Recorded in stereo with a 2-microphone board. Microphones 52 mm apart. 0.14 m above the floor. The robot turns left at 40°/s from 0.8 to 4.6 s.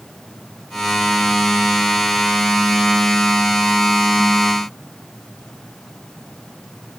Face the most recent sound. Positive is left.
No sound to turn to.